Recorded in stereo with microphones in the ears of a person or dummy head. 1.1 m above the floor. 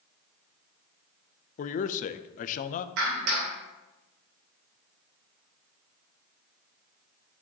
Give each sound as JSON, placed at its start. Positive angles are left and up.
{"t": 1.6, "sound": "a man speaking", "side_deg": 50, "distance_m": 0.6}
{"t": 3.0, "sound": "a clap", "side_deg": -65, "distance_m": 3.0}